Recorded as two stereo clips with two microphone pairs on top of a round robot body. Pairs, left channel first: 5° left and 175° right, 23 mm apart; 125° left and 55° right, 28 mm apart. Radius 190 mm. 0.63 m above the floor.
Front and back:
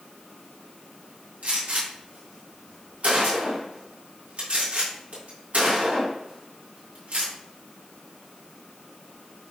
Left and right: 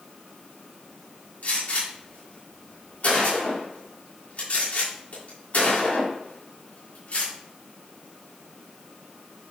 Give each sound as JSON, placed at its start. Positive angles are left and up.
{"t": 1.4, "sound": "a gunshot", "azimuth_deg": 160, "distance_m": 3.0}